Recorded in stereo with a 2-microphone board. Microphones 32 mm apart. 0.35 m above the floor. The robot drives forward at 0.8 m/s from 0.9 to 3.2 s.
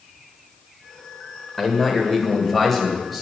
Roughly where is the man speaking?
Centre.